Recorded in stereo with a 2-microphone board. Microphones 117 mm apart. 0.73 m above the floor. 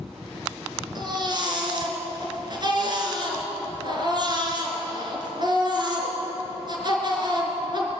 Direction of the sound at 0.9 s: 40° right (ahead or behind).